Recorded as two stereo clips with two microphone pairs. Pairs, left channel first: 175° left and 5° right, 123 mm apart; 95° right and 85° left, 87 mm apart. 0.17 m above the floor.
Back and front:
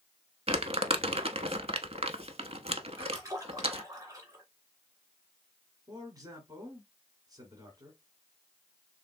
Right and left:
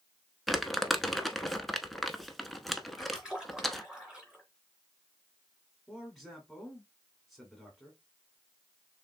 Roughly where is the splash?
Ahead.